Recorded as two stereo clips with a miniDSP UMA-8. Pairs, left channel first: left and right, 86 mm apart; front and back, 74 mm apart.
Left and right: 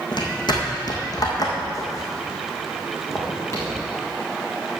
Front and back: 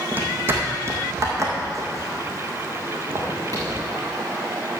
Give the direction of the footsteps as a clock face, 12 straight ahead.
8 o'clock.